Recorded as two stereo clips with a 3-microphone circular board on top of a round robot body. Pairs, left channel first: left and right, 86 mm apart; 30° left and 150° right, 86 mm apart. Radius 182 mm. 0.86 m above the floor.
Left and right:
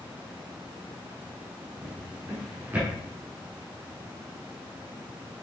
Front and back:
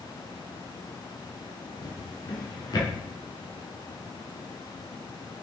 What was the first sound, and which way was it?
A drawer, 15° right.